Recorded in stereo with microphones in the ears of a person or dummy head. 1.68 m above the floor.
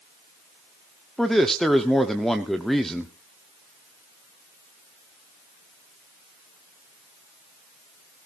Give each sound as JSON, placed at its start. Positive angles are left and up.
{"t": 1.2, "sound": "a man speaking", "side_deg": 0, "distance_m": 1.0}